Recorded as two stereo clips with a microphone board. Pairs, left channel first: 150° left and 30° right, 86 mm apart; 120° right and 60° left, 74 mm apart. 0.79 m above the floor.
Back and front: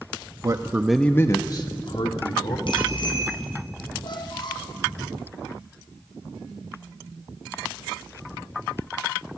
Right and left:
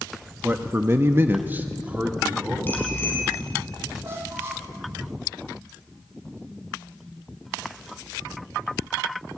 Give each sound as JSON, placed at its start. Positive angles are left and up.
{"t": 0.4, "sound": "a man speaking", "azimuth_deg": 0, "distance_m": 1.1}
{"t": 2.7, "sound": "a bicycle bell", "azimuth_deg": 175, "distance_m": 4.5}
{"t": 4.0, "sound": "a squeak", "azimuth_deg": 120, "distance_m": 2.5}